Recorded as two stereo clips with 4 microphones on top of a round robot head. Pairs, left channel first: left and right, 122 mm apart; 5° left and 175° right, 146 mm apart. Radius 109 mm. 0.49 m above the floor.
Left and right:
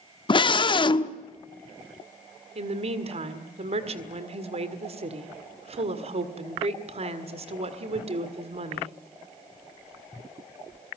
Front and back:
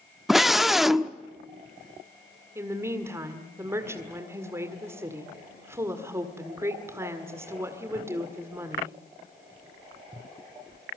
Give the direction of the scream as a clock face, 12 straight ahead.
9 o'clock.